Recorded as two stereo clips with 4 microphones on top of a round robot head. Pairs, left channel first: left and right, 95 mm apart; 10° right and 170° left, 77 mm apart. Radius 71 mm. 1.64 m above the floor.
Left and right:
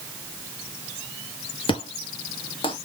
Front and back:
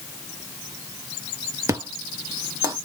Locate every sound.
1.7 s an explosion: 120° left, 1.0 m